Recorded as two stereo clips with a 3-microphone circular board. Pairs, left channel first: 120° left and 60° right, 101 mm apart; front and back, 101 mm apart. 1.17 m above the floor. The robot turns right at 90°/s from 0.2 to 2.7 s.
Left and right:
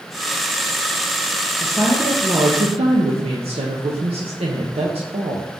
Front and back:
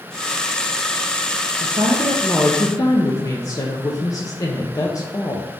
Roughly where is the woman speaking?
Behind.